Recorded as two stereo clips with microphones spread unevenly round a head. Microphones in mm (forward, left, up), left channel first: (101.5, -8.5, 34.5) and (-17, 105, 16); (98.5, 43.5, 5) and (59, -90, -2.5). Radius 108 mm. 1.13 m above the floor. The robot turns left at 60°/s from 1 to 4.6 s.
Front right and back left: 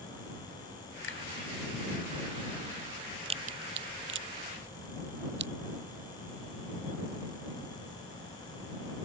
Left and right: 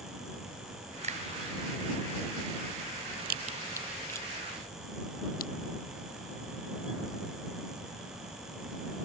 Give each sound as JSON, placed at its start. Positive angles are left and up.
{"t": 1.0, "sound": "a finger snap", "azimuth_deg": -70}
{"t": 3.2, "sound": "a crack", "azimuth_deg": -155}